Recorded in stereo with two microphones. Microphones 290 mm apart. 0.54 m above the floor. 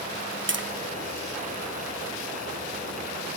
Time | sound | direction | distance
0.5 | tapping | 40° right (ahead or behind) | 0.6 m